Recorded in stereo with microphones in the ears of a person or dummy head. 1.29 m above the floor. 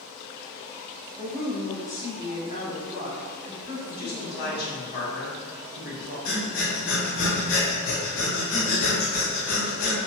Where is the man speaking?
55° left (ahead or behind), 1.4 m.